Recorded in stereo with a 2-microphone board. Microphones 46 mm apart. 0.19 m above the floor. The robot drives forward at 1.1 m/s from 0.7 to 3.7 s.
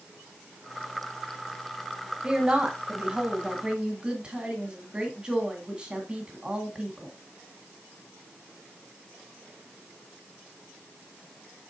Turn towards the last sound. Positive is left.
turn(degrees=-20)  # may be behind; listen again after turning